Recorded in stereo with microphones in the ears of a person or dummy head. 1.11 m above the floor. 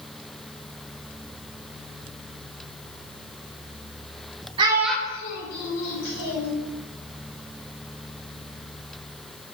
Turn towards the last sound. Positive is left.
turn(degrees=90)